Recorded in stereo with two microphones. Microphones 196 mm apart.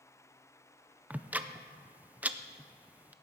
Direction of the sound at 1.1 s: 10° right (ahead or behind).